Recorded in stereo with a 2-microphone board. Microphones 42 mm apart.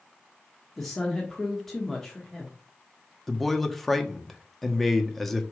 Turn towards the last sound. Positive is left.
turn(degrees=5)  # may be behind; listen again after turning